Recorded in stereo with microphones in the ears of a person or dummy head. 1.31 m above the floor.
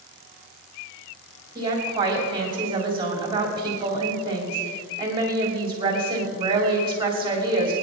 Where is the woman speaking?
25° right (ahead or behind), 3 m.